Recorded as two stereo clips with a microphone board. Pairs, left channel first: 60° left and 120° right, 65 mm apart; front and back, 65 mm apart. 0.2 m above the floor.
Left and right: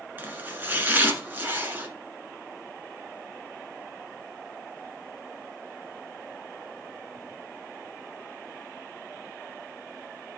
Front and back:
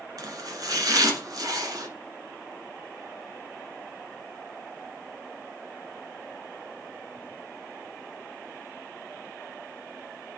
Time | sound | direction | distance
0.2 | chopping | straight behind | 1.5 m